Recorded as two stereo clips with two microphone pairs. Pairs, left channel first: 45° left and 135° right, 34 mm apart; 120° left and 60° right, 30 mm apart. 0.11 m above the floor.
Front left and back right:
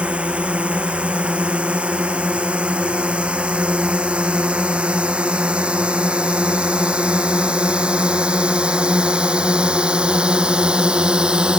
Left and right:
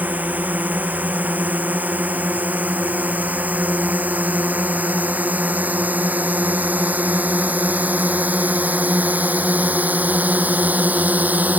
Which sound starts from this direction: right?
A drone, at 0.0 s.